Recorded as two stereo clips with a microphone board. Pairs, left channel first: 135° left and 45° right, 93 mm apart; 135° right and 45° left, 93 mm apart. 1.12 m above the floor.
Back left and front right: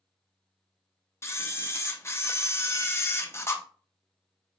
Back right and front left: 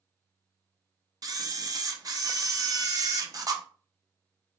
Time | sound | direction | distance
1.2 | a camera shutter | 80° left | 0.7 m